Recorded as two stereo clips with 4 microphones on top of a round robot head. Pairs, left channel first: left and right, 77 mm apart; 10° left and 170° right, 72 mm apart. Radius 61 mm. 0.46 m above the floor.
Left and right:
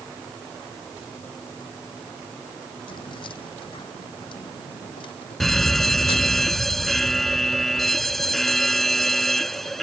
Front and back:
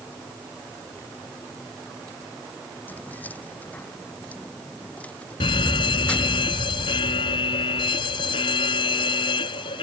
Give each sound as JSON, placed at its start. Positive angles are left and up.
{"t": 2.9, "sound": "keys jangling", "azimuth_deg": 75}
{"t": 5.4, "sound": "a fire alarm", "azimuth_deg": 0}